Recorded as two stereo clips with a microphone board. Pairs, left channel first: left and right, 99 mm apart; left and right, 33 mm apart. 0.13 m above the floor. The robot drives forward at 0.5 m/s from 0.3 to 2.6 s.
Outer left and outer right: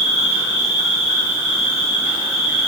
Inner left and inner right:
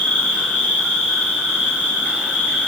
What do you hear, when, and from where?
0.0 s an insect: 40° left (ahead or behind), 1.4 m; by 2.7 s 60° left (ahead or behind), 1.1 m